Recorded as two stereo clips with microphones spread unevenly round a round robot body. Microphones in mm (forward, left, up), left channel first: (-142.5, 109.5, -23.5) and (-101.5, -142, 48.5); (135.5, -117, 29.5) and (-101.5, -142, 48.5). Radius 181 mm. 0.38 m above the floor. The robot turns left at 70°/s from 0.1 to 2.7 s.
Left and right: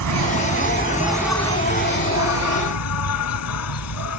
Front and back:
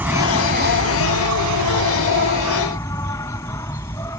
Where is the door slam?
I don't hear a door slam.